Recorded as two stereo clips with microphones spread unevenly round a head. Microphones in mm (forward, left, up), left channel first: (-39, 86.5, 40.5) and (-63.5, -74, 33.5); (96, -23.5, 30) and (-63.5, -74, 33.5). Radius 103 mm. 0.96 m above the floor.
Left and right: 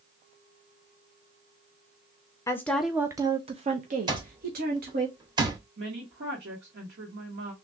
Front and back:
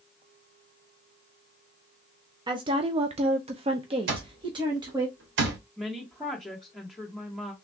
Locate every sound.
2.5 s a woman speaking: 145° left, 0.6 m; by 5.1 s 100° right, 1.3 m
4.1 s an alarm clock: 165° right, 1.4 m
5.8 s a woman speaking: 70° right, 1.2 m